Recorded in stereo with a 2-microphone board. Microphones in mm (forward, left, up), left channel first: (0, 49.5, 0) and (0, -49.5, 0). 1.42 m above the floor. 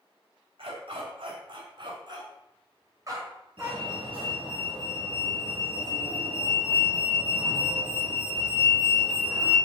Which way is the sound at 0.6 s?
65° right (ahead or behind).